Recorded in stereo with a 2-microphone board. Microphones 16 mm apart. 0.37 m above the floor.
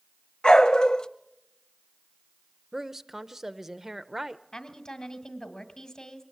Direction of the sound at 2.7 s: 25° right (ahead or behind).